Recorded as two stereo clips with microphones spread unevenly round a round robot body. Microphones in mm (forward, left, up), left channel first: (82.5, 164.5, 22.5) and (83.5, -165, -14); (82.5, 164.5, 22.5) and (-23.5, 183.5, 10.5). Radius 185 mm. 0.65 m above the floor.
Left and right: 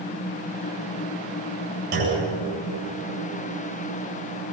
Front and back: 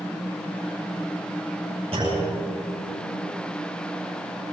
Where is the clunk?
120° right, 8.5 m.